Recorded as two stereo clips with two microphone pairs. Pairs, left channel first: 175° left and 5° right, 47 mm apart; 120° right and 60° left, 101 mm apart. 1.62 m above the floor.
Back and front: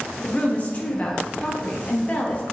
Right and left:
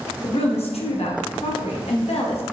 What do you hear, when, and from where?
0.2 s a woman speaking: 125° right, 1.0 m